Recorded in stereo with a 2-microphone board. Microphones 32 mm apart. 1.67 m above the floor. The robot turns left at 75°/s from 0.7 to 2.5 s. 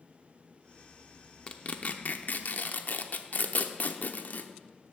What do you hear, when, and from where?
1.5 s tearing paper: 30° left (ahead or behind), 0.7 m; by 4.5 s 55° left (ahead or behind), 0.7 m